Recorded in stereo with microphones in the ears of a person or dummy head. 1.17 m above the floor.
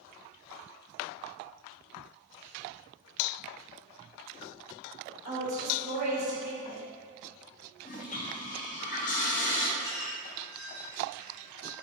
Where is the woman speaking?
55° right (ahead or behind), 1.6 m.